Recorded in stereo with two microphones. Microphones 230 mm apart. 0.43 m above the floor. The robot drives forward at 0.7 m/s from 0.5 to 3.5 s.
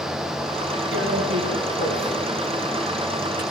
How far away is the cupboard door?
No cupboard door in this recording.